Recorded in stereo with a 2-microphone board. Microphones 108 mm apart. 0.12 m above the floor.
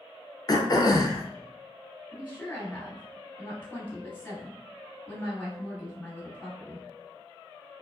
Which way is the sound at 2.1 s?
20° left (ahead or behind).